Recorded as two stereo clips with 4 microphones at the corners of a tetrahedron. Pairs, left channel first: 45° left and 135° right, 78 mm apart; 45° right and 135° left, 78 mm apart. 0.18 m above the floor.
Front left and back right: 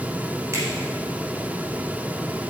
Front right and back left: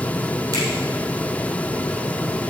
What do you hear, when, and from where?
0.5 s a finger snap: 175° left, 3.5 m